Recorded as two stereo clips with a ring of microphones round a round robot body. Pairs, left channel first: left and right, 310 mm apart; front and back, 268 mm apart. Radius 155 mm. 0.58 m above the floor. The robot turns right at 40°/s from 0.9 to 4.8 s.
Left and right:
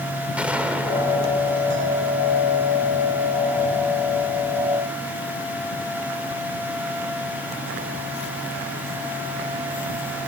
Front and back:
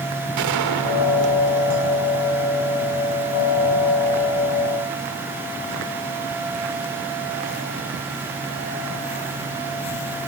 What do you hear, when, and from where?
0.4 s a gunshot: 175° right, 1.7 m; by 2.5 s 115° right, 1.7 m